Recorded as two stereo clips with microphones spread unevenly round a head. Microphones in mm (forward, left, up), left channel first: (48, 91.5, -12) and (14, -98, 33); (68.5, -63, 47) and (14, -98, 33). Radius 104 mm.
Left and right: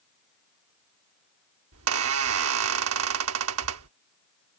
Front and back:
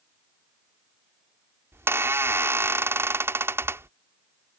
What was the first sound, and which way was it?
A squeak, 95° right.